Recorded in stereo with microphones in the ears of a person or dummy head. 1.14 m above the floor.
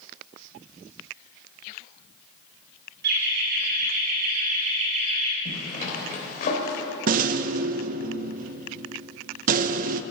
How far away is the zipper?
About 3.5 m.